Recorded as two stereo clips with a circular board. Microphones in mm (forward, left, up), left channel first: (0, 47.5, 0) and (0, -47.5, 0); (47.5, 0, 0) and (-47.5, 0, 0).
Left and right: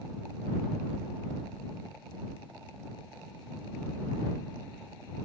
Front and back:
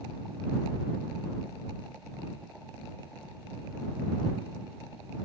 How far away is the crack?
No crack in this recording.